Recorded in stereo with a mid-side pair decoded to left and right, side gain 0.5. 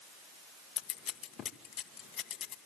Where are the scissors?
55° left, 1.5 m.